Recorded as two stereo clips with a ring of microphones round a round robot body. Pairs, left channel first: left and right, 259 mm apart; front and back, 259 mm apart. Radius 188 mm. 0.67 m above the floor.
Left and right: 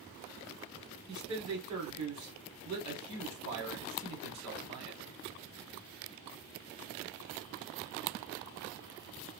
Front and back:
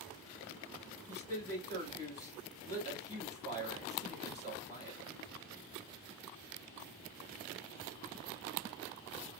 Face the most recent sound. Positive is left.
turn(degrees=-80)